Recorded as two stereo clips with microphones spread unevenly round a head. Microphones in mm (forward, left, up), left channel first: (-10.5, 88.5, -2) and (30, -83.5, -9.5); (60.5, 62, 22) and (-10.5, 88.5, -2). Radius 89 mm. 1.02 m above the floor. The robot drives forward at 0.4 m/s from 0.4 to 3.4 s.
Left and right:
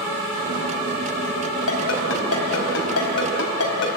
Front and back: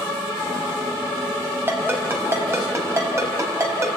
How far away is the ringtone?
About 4.5 m.